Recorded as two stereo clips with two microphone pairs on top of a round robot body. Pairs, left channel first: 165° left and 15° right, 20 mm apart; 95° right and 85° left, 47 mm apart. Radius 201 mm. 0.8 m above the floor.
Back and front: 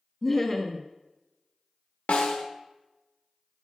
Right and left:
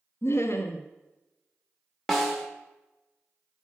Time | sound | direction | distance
0.2 | laughter | 120° right | 0.7 m
2.1 | a snare drum | 175° right | 0.6 m